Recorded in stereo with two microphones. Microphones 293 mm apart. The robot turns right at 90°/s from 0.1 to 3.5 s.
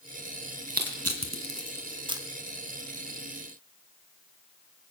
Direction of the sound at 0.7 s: 30° right (ahead or behind).